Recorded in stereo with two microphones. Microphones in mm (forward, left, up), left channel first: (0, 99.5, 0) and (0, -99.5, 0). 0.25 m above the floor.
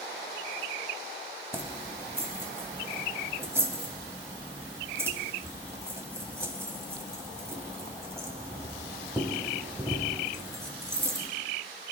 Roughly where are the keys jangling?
Centre.